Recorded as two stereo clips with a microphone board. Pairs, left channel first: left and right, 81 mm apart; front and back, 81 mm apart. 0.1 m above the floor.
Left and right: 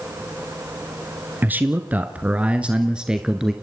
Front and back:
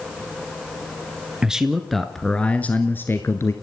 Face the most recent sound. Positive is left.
turn(degrees=-15)